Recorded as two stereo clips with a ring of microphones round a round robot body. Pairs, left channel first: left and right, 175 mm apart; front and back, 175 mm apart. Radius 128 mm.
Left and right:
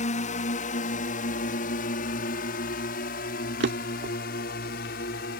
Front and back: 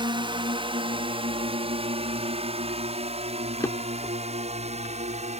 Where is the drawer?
80° right.